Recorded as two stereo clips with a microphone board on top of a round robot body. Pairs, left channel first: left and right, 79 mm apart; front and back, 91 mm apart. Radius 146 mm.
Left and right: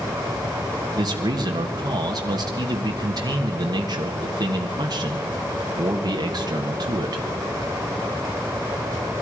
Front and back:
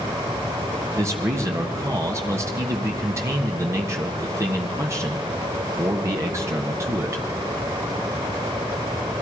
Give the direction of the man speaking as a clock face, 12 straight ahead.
4 o'clock.